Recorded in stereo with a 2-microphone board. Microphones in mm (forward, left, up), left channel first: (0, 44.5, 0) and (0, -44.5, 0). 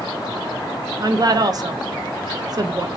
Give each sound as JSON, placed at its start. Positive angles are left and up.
{"t": 1.0, "sound": "a woman speaking", "side_deg": -45, "distance_m": 0.6}